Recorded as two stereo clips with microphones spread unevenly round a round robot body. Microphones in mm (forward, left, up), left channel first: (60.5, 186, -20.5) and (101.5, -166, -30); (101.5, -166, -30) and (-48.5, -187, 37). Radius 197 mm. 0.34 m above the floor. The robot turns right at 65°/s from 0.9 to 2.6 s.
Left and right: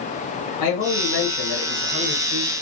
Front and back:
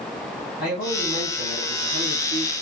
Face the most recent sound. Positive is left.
turn(degrees=180)